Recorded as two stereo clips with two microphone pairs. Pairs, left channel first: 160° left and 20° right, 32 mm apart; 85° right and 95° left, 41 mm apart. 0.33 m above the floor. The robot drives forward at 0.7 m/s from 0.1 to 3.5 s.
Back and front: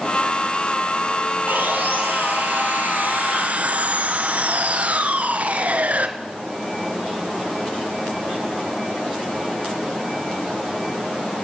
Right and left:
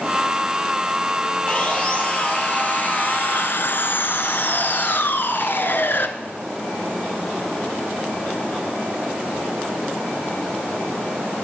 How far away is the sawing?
About 2.5 m.